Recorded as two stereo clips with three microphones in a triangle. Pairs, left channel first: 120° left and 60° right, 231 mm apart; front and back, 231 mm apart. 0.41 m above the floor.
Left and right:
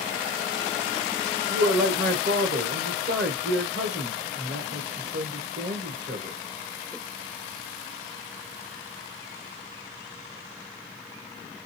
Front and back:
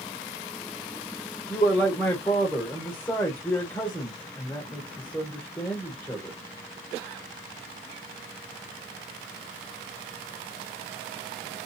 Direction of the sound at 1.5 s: 70° right.